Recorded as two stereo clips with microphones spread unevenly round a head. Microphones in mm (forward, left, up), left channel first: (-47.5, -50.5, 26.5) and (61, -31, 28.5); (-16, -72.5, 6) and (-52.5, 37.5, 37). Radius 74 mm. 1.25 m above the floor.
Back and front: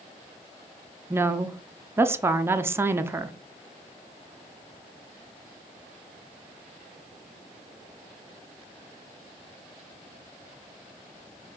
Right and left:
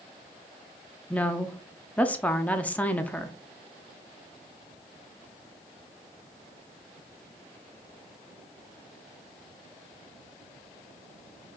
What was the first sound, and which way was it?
A woman speaking, 40° right.